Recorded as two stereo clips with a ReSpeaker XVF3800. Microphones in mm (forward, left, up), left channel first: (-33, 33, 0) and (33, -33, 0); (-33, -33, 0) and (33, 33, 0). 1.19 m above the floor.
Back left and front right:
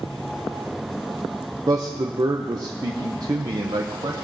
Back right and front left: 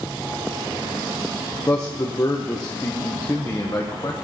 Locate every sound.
1.7 s a man speaking: 90° right, 0.7 m